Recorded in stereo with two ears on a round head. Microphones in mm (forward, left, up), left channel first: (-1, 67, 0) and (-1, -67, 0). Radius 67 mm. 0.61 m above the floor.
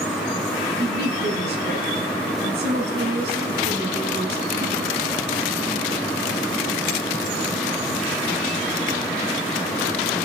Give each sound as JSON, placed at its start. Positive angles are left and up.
{"t": 0.8, "sound": "a woman speaking", "side_deg": -75, "distance_m": 4.5}